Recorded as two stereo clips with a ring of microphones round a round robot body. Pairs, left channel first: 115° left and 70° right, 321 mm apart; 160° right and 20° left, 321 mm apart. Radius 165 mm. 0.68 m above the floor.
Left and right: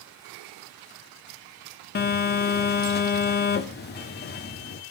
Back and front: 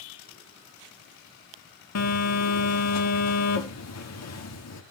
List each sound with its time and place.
1.9 s a phone buzzing: 170° left, 1.4 m